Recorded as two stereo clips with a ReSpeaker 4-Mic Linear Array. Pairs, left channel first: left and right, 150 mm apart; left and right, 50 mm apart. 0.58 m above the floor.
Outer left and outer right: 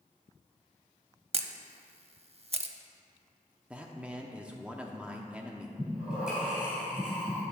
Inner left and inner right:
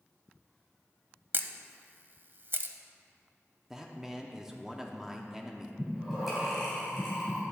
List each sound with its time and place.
1.3 s a camera shutter: 45° right (ahead or behind), 0.5 m
3.7 s a man speaking: 10° right (ahead or behind), 0.7 m
5.8 s breathing: 5° right (ahead or behind), 3 m